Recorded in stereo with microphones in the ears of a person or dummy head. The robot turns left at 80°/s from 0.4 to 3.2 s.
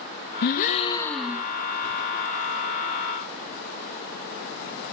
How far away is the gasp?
About 1.8 m.